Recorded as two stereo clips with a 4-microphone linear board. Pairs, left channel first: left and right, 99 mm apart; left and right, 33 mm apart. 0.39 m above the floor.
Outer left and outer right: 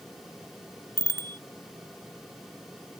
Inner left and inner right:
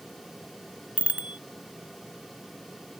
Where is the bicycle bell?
40° right (ahead or behind).